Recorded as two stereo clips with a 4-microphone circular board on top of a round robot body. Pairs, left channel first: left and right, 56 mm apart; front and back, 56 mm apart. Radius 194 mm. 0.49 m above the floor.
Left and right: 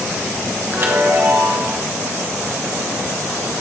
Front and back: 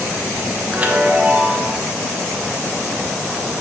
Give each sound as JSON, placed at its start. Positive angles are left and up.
{"t": 0.7, "sound": "a chime", "azimuth_deg": -125, "distance_m": 1.3}